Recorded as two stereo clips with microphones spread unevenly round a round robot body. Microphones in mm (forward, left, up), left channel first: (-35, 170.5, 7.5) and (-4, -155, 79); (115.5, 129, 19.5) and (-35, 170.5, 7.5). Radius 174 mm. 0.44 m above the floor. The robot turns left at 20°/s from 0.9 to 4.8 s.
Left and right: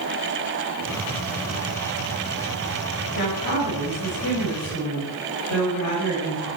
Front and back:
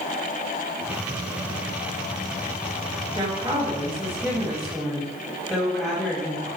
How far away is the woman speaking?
About 3 m.